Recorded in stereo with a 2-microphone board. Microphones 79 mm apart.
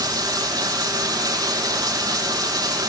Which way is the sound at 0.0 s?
60° right (ahead or behind).